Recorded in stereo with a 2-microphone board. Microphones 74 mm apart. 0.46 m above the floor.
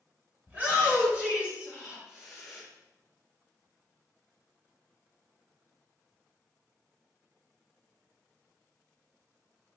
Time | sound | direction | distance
0.5 | a shout | 25° right (ahead or behind) | 1.8 m